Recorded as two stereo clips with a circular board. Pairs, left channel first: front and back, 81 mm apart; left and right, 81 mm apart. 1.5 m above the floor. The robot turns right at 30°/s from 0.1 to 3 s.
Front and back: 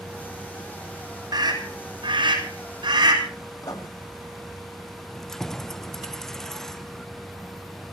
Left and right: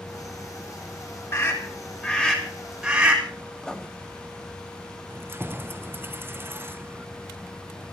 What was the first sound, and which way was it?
A scream, 145° left.